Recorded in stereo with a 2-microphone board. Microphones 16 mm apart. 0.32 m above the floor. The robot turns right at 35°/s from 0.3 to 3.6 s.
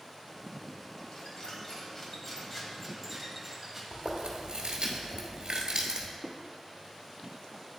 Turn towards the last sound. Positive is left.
turn(degrees=0)  # may be behind; listen again after turning